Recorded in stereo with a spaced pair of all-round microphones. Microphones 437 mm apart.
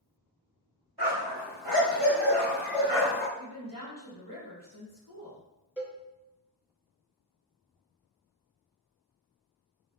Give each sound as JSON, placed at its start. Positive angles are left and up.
{"t": 1.0, "sound": "a dog barking", "side_deg": -60, "distance_m": 1.9}
{"t": 3.4, "sound": "a woman speaking", "side_deg": 45, "distance_m": 1.4}
{"t": 5.8, "sound": "a cowbell", "side_deg": -5, "distance_m": 0.8}